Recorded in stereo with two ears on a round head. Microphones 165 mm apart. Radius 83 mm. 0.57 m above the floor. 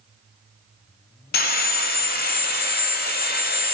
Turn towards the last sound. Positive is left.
turn(degrees=55)  # may be behind; listen again after turning